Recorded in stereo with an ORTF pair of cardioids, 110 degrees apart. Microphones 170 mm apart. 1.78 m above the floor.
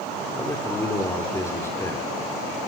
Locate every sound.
0.3 s a man speaking: 15° left, 5.5 m